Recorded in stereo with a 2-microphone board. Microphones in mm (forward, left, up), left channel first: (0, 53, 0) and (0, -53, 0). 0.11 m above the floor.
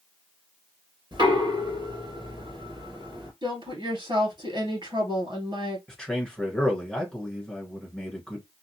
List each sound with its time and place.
1.1 s knocking: 45° right (ahead or behind), 2 m
3.4 s a woman speaking: 50° right (ahead or behind), 1.8 m
5.9 s a man speaking: 5° left (ahead or behind), 1.4 m